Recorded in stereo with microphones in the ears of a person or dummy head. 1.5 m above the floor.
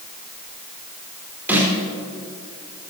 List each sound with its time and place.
1.5 s a snare drum: 10° right (ahead or behind), 6 m